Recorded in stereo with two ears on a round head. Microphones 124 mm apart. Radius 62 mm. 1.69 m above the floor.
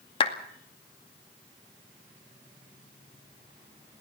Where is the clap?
40° left (ahead or behind), 2 m.